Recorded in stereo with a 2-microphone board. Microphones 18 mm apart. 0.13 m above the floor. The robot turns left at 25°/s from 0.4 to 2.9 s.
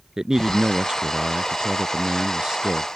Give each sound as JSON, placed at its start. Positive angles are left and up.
{"t": 0.2, "sound": "a man speaking", "azimuth_deg": -60}